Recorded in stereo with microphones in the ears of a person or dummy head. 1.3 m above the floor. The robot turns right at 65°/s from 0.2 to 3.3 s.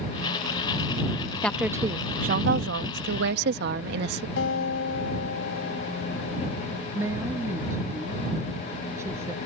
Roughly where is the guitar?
Left.